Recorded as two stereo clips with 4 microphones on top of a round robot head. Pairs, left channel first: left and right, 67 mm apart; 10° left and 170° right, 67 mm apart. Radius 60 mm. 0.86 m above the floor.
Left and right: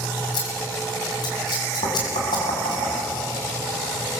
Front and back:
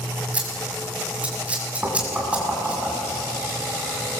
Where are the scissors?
120° left, 6.5 m.